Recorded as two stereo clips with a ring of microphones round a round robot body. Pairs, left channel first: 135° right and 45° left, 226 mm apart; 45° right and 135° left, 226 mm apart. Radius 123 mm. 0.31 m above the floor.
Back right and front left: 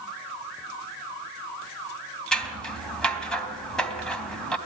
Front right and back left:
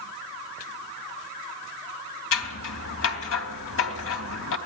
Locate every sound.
2.3 s scissors: 50° right, 3 m